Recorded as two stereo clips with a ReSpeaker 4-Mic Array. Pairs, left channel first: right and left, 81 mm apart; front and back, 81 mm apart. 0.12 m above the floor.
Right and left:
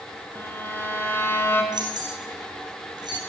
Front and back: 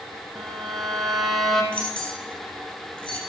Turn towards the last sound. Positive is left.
turn(degrees=70)